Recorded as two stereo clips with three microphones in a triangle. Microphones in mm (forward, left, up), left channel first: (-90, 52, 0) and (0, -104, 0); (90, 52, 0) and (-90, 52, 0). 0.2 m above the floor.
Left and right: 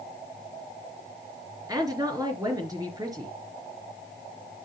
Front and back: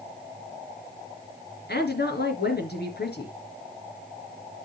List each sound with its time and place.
1.7 s a woman speaking: 5° left, 3 m